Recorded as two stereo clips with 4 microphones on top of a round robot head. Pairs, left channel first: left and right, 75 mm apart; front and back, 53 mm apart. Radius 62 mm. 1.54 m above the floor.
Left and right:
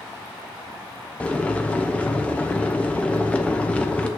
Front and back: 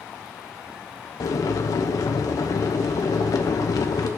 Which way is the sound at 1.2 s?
15° left.